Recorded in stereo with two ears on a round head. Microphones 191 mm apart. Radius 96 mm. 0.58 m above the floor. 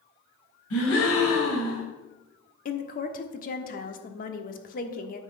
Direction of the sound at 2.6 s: 40° left (ahead or behind).